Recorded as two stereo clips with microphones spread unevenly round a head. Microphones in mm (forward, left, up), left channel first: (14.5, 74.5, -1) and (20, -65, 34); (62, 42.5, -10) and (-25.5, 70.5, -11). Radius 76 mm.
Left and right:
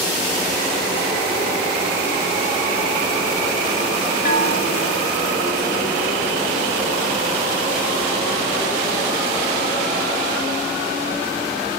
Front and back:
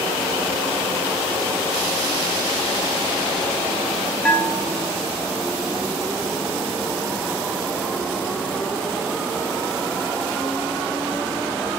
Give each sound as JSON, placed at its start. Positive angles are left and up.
{"t": 4.2, "sound": "a bell", "azimuth_deg": 65, "distance_m": 1.8}